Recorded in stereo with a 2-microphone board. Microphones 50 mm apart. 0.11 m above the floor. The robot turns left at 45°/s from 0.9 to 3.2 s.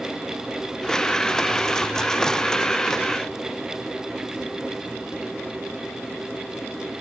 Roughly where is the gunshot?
No gunshot in this recording.